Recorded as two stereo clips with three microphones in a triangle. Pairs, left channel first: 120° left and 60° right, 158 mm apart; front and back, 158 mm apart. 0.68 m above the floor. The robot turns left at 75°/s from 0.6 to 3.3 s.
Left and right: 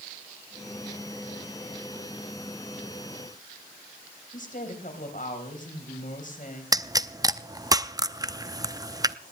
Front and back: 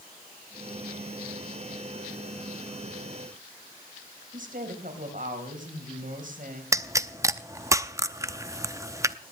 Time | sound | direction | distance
4.3 | a woman speaking | 150° left | 4 m
6.7 | a pop | 120° right | 0.6 m